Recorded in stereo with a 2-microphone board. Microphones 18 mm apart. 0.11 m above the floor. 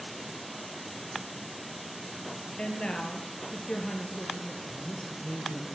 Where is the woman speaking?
50° left (ahead or behind), 1.7 m.